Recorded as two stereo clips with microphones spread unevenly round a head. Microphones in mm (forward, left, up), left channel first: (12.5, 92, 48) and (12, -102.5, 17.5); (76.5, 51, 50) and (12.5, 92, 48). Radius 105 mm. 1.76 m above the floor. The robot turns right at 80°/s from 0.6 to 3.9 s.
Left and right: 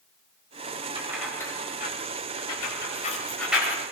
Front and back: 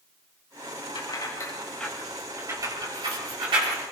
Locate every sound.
0.9 s keys jangling: 25° right, 6.5 m; by 3.8 s 155° right, 6.5 m